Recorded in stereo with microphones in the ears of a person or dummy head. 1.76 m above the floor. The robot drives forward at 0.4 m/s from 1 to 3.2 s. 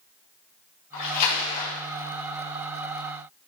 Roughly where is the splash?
Left.